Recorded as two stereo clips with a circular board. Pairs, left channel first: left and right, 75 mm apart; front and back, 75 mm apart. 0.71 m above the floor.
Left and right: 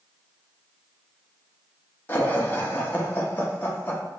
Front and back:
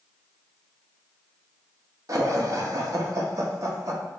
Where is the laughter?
150° left, 0.9 m.